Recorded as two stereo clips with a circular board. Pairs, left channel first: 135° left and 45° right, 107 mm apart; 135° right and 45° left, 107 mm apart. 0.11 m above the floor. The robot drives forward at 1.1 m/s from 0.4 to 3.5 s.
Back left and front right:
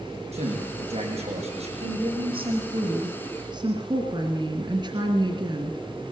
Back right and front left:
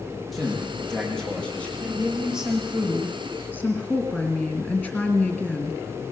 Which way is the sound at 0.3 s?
45° right.